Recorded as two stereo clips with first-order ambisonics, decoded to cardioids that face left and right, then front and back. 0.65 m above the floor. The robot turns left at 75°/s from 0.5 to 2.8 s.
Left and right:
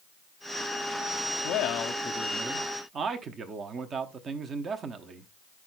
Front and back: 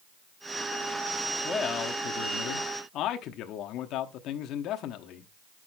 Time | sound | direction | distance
1.4 | a man speaking | 70° left | 0.9 m